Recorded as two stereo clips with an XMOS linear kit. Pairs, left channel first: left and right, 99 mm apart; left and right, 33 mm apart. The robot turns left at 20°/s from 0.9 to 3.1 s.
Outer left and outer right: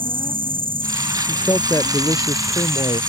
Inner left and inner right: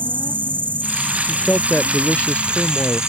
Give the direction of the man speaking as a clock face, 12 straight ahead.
7 o'clock.